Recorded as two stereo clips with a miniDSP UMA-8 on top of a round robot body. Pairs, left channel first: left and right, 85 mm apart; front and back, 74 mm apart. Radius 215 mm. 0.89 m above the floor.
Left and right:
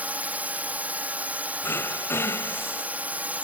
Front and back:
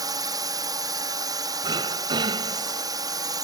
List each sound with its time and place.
0.0 s a drone: 160° right
1.6 s throat clearing: 150° left